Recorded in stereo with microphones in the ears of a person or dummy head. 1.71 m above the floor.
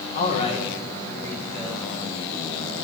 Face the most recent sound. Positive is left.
turn(degrees=0)  # may be behind; listen again after turning